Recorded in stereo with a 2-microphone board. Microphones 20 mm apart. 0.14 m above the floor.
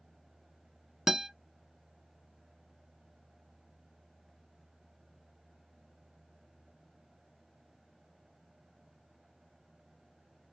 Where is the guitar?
20° right (ahead or behind), 0.7 m.